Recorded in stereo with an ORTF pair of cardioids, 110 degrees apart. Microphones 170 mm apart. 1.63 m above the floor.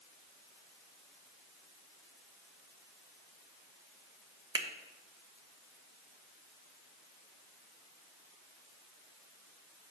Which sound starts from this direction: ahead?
A finger snap, at 4.5 s.